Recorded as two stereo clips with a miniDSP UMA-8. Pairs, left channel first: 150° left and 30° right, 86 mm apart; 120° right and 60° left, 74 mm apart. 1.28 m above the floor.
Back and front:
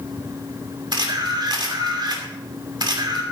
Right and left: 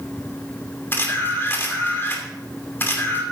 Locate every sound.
0.9 s a camera shutter: 60° right, 2.5 m